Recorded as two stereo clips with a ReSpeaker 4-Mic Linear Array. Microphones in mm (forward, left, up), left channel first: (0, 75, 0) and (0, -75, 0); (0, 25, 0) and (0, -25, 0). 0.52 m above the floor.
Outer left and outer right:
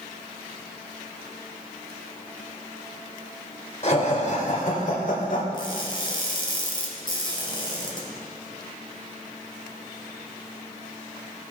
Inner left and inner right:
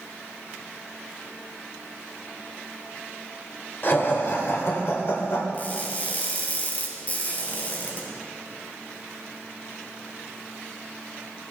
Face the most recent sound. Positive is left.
turn(degrees=30)  # may be behind; listen again after turning